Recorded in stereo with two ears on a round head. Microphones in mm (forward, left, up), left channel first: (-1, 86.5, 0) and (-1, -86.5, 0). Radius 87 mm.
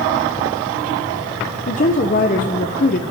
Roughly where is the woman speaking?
Left.